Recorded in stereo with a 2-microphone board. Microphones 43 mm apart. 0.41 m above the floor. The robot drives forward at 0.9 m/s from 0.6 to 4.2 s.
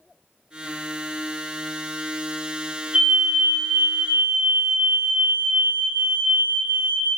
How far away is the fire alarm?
About 2.5 m.